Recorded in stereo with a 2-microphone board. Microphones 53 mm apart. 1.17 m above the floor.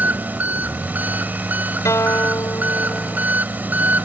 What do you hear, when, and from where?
0.0 s an engine running: 35° right (ahead or behind)
1.9 s a guitar: 80° left